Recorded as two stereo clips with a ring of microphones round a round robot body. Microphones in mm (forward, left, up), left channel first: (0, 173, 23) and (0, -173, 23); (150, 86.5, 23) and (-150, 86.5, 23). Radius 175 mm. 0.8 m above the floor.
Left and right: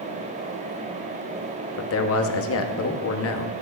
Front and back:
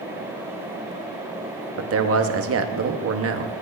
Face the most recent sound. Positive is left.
turn(degrees=140)